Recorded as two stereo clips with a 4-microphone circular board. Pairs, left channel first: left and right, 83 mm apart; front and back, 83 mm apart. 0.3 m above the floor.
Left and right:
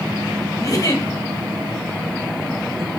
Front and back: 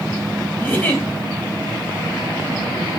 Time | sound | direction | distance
0.6 | a giggle | 60° left | 1.5 m